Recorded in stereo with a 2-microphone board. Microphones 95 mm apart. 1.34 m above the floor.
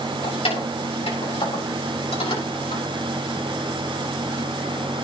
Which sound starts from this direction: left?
Keys jangling, at 0.2 s.